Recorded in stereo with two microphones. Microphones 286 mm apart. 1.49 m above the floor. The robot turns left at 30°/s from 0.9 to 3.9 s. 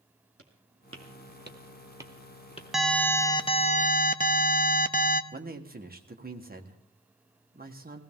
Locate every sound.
0.4 s footsteps: 55° right (ahead or behind), 2.5 m; by 2.6 s 25° left (ahead or behind), 1.6 m
2.7 s an alarm: straight behind, 0.7 m; by 5.2 s 145° left, 0.7 m
5.3 s a man speaking: 30° right (ahead or behind), 1.5 m